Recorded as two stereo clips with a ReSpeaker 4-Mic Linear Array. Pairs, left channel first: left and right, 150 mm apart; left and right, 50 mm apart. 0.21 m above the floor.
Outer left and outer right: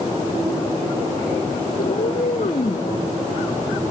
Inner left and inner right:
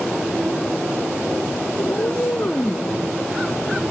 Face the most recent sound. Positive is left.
turn(degrees=35)  # may be behind; listen again after turning